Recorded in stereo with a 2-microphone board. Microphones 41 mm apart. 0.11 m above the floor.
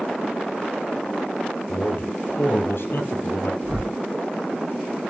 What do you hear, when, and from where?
1.7 s a man speaking: 60° left (ahead or behind), 2.5 m; by 3.5 s 65° left (ahead or behind), 3.5 m
3.6 s a whoosh: 65° right (ahead or behind), 7 m